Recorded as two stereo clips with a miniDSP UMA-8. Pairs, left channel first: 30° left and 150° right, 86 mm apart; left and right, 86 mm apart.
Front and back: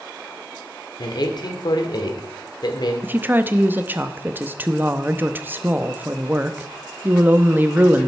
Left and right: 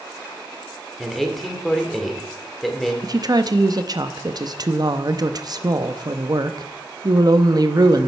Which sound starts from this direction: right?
A woman speaking, at 3.0 s.